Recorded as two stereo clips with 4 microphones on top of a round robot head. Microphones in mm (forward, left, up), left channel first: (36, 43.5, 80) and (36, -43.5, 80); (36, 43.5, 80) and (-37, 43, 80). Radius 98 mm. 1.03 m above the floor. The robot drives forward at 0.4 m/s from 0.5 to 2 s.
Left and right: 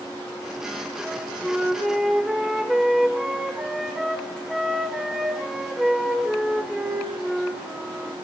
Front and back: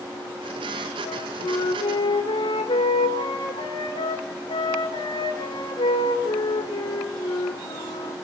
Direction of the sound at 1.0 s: Straight ahead.